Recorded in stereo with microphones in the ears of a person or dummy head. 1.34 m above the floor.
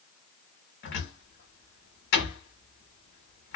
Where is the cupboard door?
60° left (ahead or behind), 1.3 m.